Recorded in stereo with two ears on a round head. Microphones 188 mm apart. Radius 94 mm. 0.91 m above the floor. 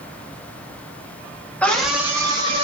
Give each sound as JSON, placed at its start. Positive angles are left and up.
{"t": 1.6, "sound": "a scream", "side_deg": 5, "distance_m": 0.7}